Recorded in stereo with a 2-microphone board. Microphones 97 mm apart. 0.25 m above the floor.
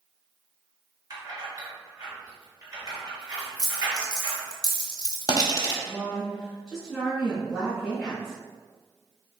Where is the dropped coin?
45° left (ahead or behind), 0.8 m.